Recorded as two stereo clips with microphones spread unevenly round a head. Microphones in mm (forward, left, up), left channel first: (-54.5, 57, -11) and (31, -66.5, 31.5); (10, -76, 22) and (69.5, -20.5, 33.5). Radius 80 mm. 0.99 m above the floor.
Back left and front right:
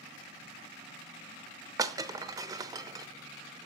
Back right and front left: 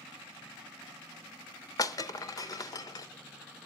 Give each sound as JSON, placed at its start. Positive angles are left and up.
{"t": 1.8, "sound": "breaking glass", "azimuth_deg": -100, "distance_m": 0.8}